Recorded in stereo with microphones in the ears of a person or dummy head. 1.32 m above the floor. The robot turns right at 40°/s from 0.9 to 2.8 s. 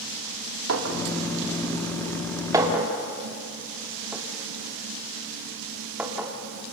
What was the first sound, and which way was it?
A clink, 85° right.